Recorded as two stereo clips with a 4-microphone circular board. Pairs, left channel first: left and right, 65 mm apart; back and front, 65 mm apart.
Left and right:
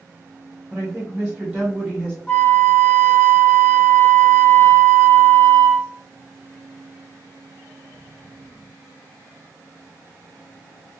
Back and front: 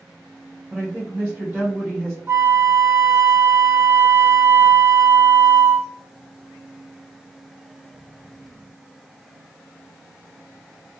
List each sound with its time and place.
0.7 s a woman speaking: 55° right, 1.6 m
2.3 s a flute: 25° left, 0.8 m